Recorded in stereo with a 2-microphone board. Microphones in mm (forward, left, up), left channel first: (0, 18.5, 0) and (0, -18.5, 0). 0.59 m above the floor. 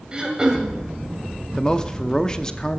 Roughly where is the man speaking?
Centre.